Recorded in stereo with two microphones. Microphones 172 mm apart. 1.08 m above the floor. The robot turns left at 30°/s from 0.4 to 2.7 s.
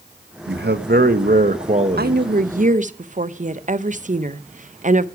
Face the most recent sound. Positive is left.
turn(degrees=-45)  # may be behind; listen again after turning